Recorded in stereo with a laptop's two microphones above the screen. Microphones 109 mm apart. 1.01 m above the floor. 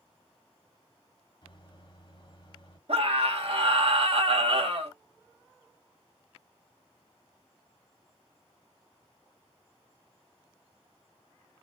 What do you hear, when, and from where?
1.4 s a microwave: 50° left (ahead or behind), 1.6 m
2.9 s a scream: 60° right (ahead or behind), 2 m